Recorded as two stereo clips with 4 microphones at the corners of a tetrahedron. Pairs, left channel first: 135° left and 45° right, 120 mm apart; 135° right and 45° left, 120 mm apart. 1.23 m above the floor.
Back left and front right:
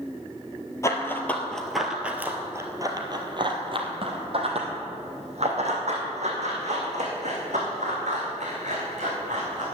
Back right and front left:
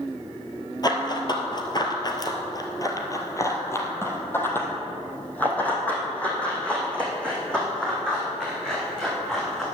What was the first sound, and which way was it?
Running footsteps, 170° right.